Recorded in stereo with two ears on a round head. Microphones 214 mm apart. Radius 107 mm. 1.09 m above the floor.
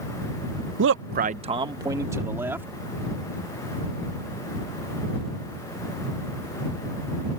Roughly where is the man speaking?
Right.